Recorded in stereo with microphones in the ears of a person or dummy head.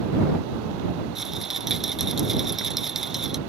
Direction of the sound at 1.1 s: 5° right (ahead or behind).